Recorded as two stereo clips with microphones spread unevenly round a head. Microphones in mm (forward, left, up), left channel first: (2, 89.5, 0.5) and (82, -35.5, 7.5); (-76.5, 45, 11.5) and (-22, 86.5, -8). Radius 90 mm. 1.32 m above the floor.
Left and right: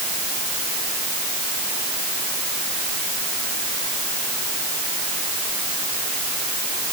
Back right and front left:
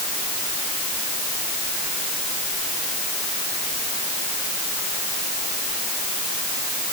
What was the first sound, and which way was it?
Only background noise.